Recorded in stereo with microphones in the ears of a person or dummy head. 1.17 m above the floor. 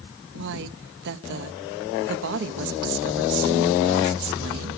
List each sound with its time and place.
0.3 s a woman speaking: 65° right (ahead or behind), 1.2 m